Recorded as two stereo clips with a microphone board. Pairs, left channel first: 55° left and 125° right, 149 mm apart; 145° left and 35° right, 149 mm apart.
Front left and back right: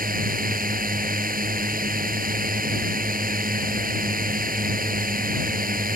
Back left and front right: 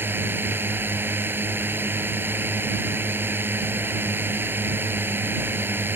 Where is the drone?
110° right.